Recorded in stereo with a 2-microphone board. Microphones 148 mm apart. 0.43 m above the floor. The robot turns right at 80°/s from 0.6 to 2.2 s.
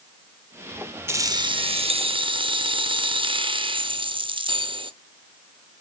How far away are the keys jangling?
About 0.7 m.